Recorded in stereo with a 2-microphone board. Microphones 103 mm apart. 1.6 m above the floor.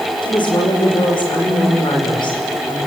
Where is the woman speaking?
50° left (ahead or behind), 6 m.